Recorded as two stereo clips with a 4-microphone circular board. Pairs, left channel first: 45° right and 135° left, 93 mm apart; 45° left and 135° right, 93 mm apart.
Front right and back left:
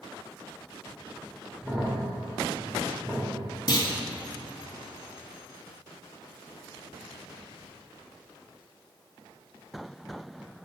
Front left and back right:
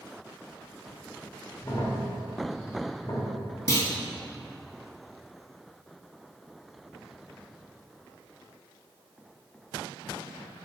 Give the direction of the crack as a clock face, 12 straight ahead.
10 o'clock.